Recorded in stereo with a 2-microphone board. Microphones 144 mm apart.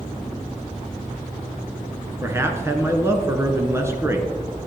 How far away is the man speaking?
About 1.3 m.